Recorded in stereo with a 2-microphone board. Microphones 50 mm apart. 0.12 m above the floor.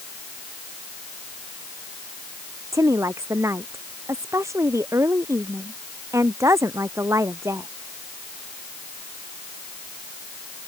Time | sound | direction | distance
2.7 | a woman speaking | 80° right | ?